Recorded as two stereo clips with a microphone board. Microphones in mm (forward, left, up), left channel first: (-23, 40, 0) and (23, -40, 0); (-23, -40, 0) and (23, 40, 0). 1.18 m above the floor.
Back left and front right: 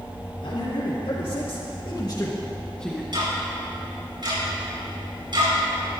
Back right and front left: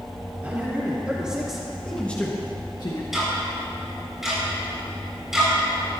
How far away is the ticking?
About 5.5 m.